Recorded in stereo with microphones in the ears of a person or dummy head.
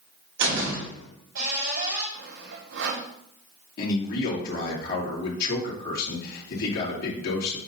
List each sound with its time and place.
0.4 s a door slam: 70° right (ahead or behind), 3.5 m
2.1 s sawing: 75° right (ahead or behind), 2 m
3.8 s a man speaking: 65° left (ahead or behind), 2.5 m